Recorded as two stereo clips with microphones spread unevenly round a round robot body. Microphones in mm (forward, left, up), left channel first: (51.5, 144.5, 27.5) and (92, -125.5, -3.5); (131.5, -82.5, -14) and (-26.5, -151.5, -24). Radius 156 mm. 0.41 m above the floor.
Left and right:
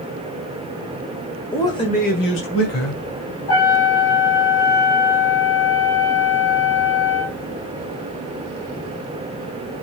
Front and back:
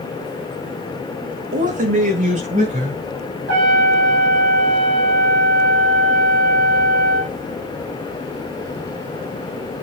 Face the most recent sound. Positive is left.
turn(degrees=180)